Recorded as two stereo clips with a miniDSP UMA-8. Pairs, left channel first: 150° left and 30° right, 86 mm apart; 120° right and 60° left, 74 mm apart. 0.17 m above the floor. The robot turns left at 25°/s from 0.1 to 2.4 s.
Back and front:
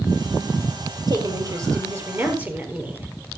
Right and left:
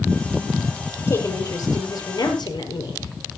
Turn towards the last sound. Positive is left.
turn(degrees=-100)